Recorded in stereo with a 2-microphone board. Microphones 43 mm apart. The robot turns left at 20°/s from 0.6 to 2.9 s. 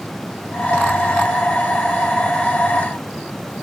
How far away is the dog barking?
I don't hear a dog barking.